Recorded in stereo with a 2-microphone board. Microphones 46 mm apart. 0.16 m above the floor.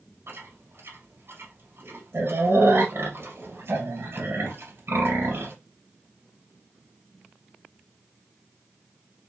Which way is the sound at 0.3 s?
60° right (ahead or behind).